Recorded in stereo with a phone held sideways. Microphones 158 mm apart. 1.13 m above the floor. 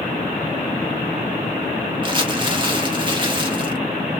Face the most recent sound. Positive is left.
turn(degrees=-30)  # may be behind; listen again after turning